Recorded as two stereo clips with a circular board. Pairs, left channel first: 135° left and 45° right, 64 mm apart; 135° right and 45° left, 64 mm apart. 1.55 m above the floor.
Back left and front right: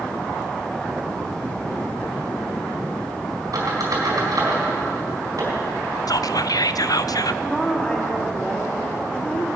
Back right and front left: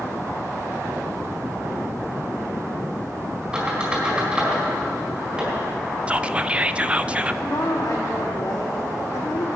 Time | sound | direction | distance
3.5 | a squeak | 25° right | 4 m
6.1 | whispering | 115° left | 0.5 m
7.4 | a woman speaking | 160° right | 3.5 m